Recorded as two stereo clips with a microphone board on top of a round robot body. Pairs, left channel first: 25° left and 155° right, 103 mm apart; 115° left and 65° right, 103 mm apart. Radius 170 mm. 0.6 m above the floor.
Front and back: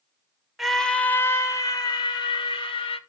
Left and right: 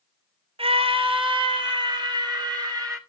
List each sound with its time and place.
0.6 s a scream: 70° right, 1.1 m; by 3.0 s 15° right, 2 m